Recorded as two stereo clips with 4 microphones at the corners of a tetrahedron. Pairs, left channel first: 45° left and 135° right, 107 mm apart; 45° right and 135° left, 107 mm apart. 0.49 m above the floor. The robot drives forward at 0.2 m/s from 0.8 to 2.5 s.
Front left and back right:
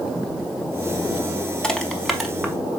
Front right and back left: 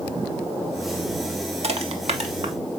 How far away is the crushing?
About 0.6 m.